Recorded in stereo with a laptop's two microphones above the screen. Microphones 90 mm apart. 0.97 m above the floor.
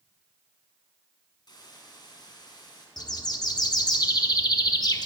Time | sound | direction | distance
1.5 | a hiss | 50° left (ahead or behind) | 2.5 m
3.0 | a bird | 45° left (ahead or behind) | 0.9 m